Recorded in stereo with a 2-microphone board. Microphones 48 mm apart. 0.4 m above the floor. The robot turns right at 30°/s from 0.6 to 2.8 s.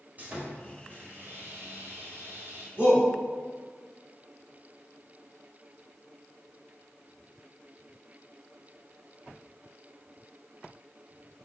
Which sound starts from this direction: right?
A shout, at 2.8 s.